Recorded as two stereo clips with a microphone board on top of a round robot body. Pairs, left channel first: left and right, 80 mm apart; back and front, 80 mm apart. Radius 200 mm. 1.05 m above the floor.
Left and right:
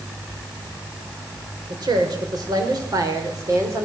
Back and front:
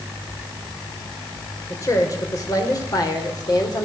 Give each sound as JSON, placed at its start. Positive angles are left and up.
{"t": 1.7, "sound": "a woman speaking", "azimuth_deg": -130, "distance_m": 5.5}